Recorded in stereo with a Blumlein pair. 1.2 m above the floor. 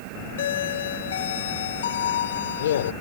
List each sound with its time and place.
0.4 s a doorbell: 60° left